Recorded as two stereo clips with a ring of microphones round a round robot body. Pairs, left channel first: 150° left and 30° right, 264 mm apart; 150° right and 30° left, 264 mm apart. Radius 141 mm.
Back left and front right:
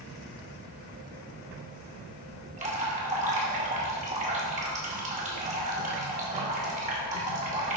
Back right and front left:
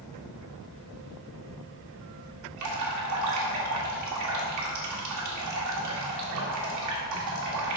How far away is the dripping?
About 2 m.